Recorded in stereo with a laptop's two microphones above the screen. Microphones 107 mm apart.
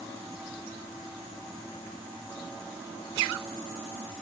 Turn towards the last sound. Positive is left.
No sound to turn to.